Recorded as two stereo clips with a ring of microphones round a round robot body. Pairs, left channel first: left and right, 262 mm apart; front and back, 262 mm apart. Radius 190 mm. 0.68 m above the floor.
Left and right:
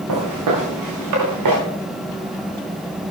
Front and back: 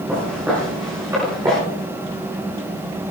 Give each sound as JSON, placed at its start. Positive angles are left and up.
{"t": 0.1, "sound": "footsteps", "azimuth_deg": -95, "distance_m": 5.0}